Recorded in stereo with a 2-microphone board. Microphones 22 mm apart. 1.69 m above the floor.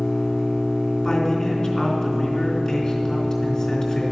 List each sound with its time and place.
0.0 s an engine running: 60° left (ahead or behind), 4.5 m
1.0 s a man speaking: 35° left (ahead or behind), 3.5 m